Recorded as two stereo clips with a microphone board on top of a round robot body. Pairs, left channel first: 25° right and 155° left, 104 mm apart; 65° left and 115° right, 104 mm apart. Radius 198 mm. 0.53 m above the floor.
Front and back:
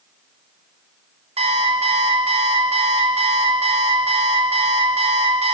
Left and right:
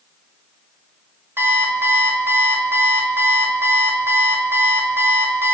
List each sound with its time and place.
1.4 s an alarm clock: 175° left, 1.6 m